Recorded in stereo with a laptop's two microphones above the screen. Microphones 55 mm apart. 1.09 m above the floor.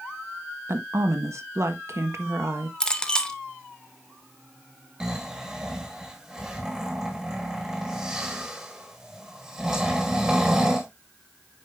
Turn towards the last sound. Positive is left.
turn(degrees=-10)  # may be behind; listen again after turning